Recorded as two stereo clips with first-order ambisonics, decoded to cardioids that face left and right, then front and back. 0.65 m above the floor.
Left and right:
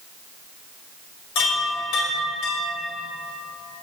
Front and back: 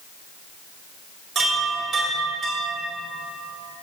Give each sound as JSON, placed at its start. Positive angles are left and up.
{"t": 1.4, "sound": "a chime", "azimuth_deg": 115, "distance_m": 2.0}